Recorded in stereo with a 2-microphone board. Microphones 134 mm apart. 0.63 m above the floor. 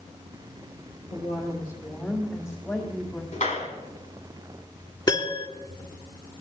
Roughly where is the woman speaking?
Left.